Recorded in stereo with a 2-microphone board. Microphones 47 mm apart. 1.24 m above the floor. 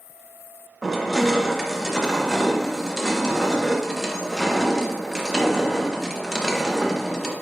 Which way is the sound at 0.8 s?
Centre (ahead or behind).